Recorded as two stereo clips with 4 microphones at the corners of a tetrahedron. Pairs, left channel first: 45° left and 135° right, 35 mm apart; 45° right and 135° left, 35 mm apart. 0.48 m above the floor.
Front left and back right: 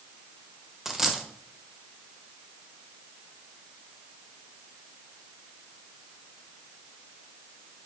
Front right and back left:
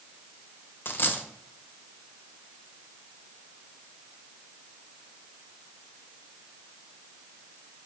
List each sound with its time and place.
0.8 s a dropped coin: 55° right, 0.6 m